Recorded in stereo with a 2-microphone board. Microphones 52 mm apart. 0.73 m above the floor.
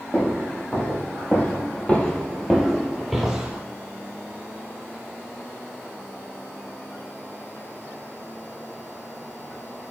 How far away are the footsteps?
About 1.5 m.